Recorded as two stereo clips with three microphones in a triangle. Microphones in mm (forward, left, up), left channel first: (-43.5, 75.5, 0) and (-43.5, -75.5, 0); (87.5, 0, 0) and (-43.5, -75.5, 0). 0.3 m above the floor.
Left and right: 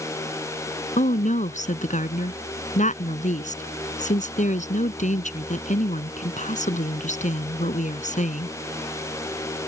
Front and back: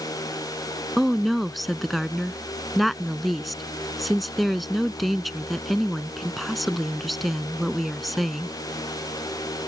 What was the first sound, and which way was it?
A woman speaking, 120° left.